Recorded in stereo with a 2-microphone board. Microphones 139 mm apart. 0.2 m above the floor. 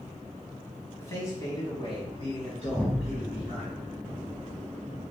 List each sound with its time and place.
1.0 s a man speaking: 20° left (ahead or behind), 1.2 m; by 3.6 s 55° left (ahead or behind), 2.5 m
2.6 s an explosion: 5° left (ahead or behind), 2 m